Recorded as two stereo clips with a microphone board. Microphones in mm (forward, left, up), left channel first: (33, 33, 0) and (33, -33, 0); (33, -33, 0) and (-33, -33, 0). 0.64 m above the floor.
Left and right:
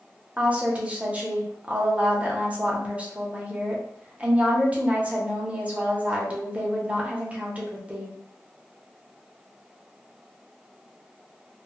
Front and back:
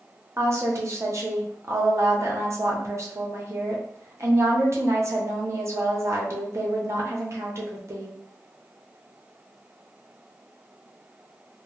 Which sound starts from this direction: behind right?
A woman speaking, at 0.4 s.